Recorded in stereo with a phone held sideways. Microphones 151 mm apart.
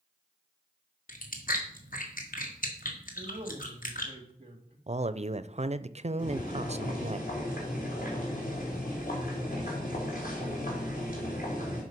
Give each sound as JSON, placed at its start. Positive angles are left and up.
{"t": 1.1, "sound": "chewing", "side_deg": 65, "distance_m": 1.8}
{"t": 3.1, "sound": "a man speaking", "side_deg": -35, "distance_m": 2.0}
{"t": 4.9, "sound": "a man speaking", "side_deg": -45, "distance_m": 0.5}
{"t": 6.2, "sound": "boiling", "side_deg": 65, "distance_m": 3.5}